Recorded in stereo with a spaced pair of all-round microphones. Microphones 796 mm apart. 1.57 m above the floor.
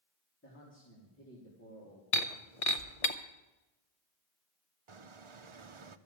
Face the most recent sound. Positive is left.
turn(degrees=-40)  # may be behind; listen again after turning